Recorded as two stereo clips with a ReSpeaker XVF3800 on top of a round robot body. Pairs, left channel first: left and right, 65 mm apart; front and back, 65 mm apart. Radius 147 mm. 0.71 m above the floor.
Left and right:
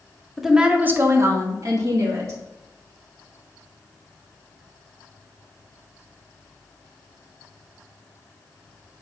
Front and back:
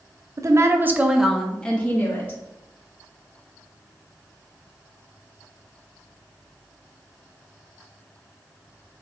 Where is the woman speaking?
175° right, 0.9 m; by 2.4 s 60° right, 1.5 m.